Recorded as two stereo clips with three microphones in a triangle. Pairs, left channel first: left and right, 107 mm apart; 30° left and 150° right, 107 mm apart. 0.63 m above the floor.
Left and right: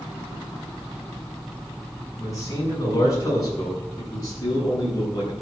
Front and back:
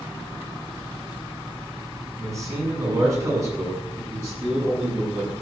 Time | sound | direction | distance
2.2 | a man speaking | 150° left | 7 m